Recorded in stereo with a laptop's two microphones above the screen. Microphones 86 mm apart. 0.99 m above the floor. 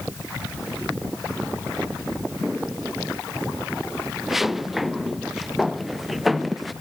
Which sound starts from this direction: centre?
Footsteps, at 2.4 s.